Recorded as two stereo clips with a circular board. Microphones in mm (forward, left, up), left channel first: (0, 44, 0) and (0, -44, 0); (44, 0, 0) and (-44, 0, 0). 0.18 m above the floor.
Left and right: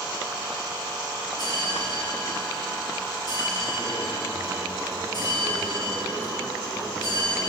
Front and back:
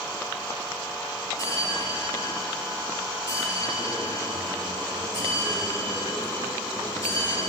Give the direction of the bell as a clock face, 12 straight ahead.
10 o'clock.